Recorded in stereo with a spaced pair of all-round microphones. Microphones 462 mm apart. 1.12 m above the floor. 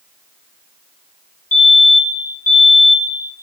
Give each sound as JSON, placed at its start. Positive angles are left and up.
{"t": 1.5, "sound": "a fire alarm", "side_deg": 15, "distance_m": 3.0}